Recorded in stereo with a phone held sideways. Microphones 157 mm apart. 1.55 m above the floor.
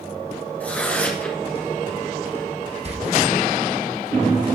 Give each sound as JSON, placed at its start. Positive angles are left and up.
{"t": 0.6, "sound": "tearing paper", "side_deg": 10, "distance_m": 1.9}
{"t": 2.9, "sound": "a door slam", "side_deg": -45, "distance_m": 1.2}